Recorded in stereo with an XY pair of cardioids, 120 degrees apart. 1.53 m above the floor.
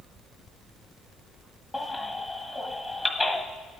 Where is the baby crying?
20° left, 1.6 m.